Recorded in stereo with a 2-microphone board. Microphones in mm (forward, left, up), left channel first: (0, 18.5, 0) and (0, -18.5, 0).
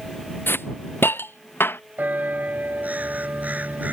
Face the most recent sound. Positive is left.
turn(degrees=-50)  # may be behind; listen again after turning